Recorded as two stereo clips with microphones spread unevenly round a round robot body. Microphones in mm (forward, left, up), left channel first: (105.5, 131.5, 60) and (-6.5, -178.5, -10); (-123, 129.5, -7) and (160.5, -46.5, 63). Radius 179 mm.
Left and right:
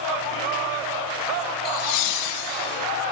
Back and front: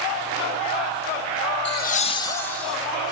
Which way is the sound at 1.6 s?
135° left.